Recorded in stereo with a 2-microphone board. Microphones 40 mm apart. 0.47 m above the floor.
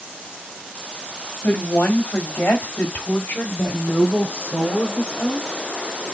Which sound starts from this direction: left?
A woman speaking, at 1.4 s.